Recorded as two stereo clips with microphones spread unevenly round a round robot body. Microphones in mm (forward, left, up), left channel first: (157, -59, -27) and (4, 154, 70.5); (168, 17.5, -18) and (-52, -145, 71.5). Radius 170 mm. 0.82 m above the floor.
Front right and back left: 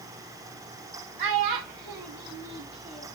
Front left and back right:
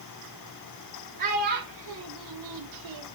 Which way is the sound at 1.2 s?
145° left.